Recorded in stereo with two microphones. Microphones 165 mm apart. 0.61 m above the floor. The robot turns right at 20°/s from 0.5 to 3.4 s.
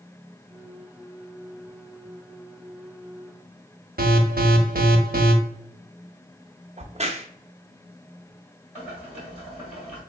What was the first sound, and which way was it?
An alarm, 65° right (ahead or behind).